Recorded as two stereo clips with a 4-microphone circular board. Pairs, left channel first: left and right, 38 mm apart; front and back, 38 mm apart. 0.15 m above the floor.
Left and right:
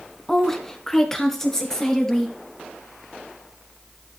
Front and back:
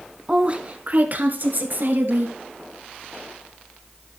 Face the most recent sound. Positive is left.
turn(degrees=165)